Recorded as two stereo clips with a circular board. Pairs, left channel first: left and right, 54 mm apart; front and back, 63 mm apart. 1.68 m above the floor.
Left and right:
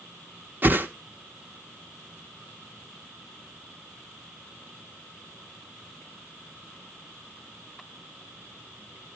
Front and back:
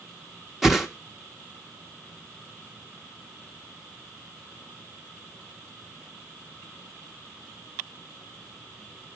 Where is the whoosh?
100° right, 0.9 m.